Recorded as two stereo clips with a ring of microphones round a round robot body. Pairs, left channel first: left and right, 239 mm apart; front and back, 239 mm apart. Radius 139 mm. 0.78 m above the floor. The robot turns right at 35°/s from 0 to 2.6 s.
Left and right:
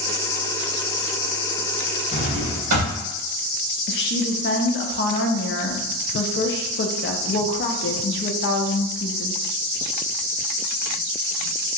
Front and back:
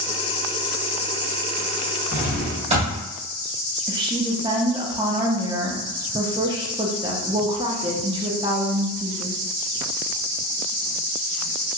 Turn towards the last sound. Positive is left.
turn(degrees=115)